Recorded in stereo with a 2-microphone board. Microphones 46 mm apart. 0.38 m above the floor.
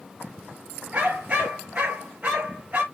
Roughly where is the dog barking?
Right.